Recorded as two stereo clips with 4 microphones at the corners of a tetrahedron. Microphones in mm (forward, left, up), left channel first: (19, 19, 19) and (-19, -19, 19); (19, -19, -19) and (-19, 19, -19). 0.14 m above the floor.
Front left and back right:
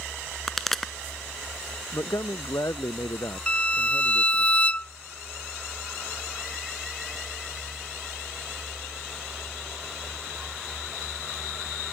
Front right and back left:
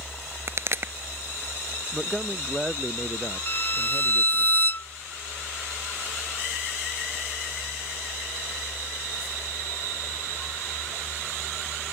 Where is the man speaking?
55° left.